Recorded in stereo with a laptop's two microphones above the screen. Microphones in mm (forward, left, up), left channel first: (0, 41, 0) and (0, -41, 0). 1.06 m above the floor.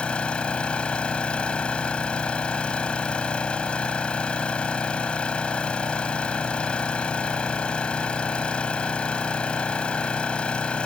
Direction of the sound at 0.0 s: 15° left (ahead or behind).